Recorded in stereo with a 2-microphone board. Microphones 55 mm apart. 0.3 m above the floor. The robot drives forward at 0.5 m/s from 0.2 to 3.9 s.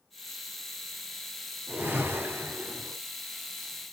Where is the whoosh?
45° right (ahead or behind), 2.5 m; by 3.0 s 55° right (ahead or behind), 1.9 m.